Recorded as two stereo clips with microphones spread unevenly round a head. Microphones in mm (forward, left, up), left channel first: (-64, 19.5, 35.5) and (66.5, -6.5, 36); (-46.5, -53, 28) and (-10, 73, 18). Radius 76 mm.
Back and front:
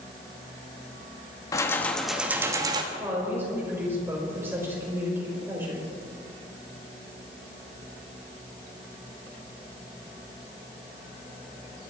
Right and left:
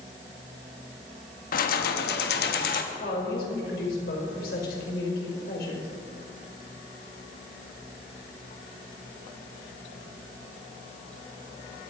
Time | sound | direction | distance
1.5 | keys jangling | 125° right | 1.5 m
2.9 | a woman speaking | 85° right | 5 m